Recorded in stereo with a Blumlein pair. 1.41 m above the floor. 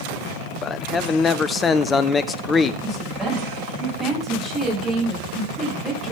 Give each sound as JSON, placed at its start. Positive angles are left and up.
{"t": 0.6, "sound": "a man speaking", "azimuth_deg": 20, "distance_m": 0.9}
{"t": 2.8, "sound": "a woman speaking", "azimuth_deg": -10, "distance_m": 9.5}